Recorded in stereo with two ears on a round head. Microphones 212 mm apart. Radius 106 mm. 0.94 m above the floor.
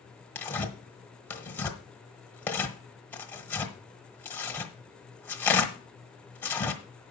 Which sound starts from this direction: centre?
Tearing paper, at 0.3 s.